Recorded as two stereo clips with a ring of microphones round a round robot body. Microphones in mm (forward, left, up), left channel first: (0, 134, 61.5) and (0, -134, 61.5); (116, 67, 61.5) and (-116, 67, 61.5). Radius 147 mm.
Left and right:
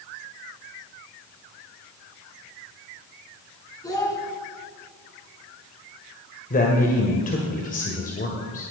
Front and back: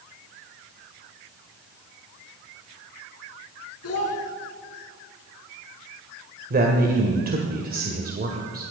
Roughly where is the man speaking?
Behind left.